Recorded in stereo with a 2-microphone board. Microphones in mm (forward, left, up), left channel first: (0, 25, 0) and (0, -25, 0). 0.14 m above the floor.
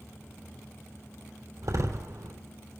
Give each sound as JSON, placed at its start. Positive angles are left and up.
{"t": 1.6, "sound": "a door slam", "side_deg": -70, "distance_m": 3.5}